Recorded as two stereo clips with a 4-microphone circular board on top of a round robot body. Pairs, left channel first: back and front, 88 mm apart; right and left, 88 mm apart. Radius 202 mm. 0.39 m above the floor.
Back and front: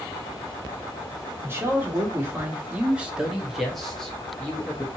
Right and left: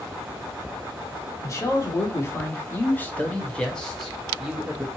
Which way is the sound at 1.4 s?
50° right.